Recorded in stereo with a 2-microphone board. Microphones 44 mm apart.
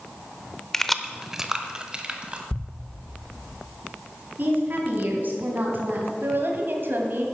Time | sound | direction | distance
0.7 | keys jangling | 10° left (ahead or behind) | 0.6 m
2.5 | a thud | 40° left (ahead or behind) | 0.6 m
4.4 | a woman speaking | 45° right (ahead or behind) | 3 m
6.2 | a woman speaking | 55° right (ahead or behind) | 2 m